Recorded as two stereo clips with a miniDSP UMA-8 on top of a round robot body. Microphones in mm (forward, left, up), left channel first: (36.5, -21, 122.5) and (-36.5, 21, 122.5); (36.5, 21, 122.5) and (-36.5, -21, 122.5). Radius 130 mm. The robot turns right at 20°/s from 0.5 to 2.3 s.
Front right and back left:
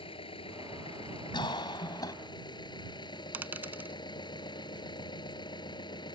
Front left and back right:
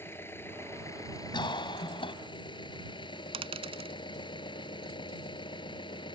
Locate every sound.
0.0 s an engine running: 35° right; by 6.2 s straight ahead
1.3 s a cough: straight ahead; by 2.1 s 15° left
3.3 s a dropped coin: 140° right